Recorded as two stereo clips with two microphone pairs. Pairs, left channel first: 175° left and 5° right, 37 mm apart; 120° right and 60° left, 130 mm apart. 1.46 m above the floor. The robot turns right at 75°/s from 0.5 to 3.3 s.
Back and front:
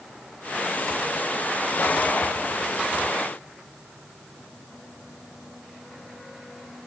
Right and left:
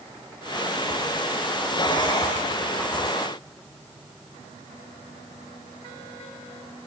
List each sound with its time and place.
Only background noise.